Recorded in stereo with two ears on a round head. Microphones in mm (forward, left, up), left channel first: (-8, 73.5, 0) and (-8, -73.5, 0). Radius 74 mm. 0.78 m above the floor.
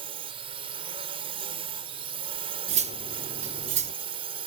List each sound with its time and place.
0.0 s a drone: 35° right (ahead or behind)
2.7 s cutlery clinking: 40° right (ahead or behind)